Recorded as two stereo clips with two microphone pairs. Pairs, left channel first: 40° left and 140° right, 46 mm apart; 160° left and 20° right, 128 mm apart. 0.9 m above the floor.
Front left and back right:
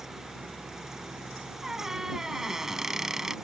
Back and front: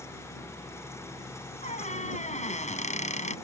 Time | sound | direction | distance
1.6 | a squeak | 145° left | ?